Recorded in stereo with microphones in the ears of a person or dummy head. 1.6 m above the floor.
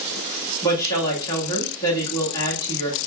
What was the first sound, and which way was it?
A woman speaking, 15° left (ahead or behind).